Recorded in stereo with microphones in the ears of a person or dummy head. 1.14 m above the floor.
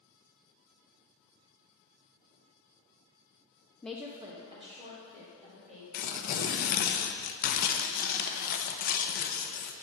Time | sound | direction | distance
3.8 | a woman speaking | 15° left (ahead or behind) | 0.5 m
5.9 | tearing paper | 50° left (ahead or behind) | 0.8 m